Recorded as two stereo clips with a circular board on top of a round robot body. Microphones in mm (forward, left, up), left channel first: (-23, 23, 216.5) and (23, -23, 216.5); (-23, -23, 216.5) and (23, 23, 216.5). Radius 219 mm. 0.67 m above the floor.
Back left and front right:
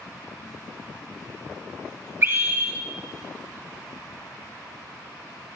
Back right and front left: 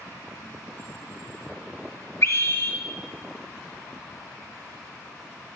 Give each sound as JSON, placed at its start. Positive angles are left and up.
{"t": 2.2, "sound": "a scream", "azimuth_deg": -90, "distance_m": 1.8}